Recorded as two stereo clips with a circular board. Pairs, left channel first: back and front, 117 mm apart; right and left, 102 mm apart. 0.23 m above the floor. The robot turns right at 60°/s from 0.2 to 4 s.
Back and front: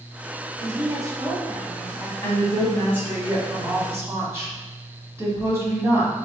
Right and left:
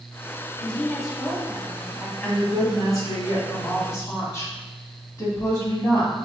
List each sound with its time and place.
0.6 s a woman speaking: 25° right, 1.2 m; by 2.1 s 65° left, 1.2 m
2.2 s a woman speaking: 155° right, 1.8 m; by 6.1 s 50° right, 1.8 m